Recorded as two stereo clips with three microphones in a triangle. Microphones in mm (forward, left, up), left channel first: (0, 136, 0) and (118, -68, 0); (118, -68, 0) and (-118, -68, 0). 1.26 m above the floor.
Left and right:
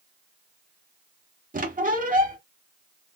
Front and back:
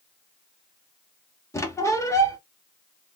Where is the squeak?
70° right, 0.8 m.